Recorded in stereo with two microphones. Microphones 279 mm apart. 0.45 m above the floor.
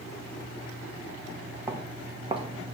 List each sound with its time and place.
1.7 s footsteps: 10° right (ahead or behind), 2.5 m; by 2.7 s 25° right (ahead or behind), 1.7 m